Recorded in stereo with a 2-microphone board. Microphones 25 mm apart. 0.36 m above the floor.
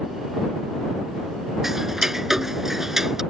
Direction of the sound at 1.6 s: 15° right (ahead or behind).